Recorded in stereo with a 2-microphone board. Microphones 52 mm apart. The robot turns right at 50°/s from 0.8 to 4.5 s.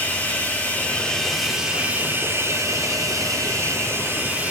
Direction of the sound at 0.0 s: 150° left.